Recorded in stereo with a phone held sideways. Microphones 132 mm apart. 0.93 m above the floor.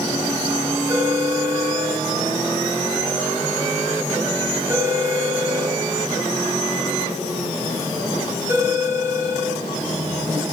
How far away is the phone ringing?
About 4.5 m.